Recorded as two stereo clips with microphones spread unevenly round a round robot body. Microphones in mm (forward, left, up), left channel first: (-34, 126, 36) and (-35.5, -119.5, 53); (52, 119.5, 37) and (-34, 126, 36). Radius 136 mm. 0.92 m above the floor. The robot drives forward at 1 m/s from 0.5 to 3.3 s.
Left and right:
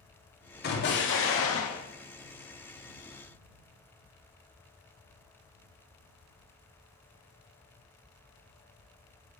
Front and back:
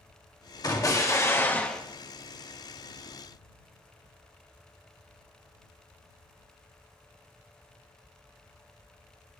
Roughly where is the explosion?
Ahead left.